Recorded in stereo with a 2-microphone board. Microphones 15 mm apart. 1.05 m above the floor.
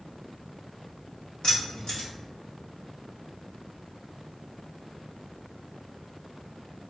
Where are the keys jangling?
80° left, 0.9 m.